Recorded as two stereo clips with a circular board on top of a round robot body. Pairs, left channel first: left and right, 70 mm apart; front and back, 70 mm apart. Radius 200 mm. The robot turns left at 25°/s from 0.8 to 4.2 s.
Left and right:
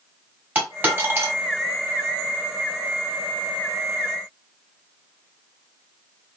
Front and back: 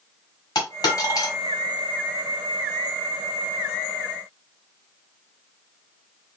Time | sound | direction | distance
0.6 | a dropped coin | 25° right | 1.7 m